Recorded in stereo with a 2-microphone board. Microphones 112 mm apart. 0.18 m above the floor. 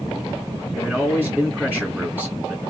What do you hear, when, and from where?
0.7 s a man speaking: 10° right (ahead or behind), 2 m